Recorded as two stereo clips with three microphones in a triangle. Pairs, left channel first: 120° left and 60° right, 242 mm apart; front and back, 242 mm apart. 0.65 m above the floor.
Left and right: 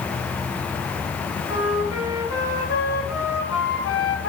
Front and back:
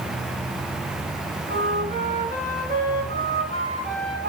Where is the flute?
125° left, 6.5 m.